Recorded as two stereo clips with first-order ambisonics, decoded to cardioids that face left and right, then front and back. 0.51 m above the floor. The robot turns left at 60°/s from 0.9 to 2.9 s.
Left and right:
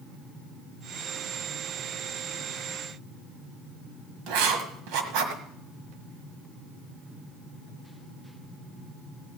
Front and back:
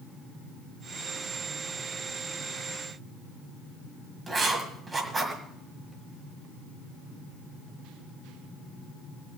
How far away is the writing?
About 1.6 m.